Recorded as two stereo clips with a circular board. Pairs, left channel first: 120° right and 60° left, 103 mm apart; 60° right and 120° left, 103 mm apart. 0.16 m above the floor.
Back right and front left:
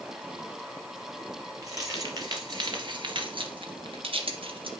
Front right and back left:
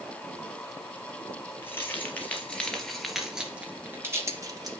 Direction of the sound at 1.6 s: 5° left.